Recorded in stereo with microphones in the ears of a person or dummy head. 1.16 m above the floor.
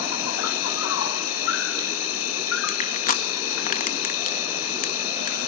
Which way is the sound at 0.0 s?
80° left.